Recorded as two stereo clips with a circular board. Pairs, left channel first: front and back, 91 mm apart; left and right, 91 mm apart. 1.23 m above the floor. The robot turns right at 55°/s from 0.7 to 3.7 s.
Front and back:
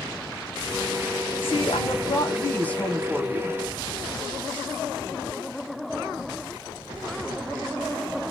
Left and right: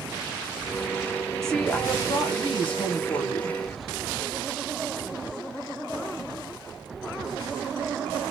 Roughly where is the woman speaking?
Ahead.